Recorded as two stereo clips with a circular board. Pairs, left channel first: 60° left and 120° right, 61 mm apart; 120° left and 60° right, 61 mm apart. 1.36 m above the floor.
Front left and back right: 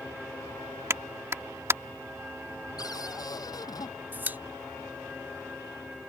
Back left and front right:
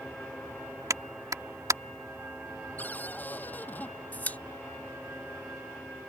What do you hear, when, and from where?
0.9 s a clap: 80° right
2.8 s a cupboard door: 60° left
4.1 s a pop: straight behind